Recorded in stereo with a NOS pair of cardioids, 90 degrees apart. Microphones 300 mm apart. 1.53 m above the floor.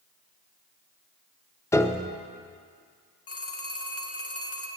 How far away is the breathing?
I don't hear breathing.